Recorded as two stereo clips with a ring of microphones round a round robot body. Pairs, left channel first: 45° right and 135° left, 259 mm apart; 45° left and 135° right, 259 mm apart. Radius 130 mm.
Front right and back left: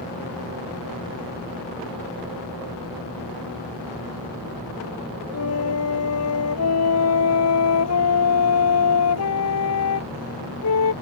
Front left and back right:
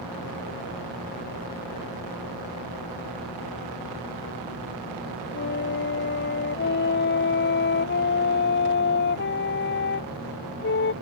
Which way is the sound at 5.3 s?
10° right.